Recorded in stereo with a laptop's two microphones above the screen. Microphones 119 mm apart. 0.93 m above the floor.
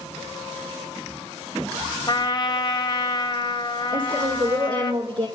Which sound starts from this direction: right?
A woman speaking, at 3.9 s.